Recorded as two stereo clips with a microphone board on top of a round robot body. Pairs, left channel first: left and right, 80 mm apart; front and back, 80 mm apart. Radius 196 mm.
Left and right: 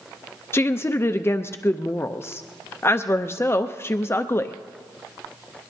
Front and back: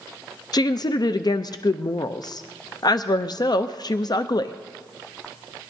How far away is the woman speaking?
About 0.6 m.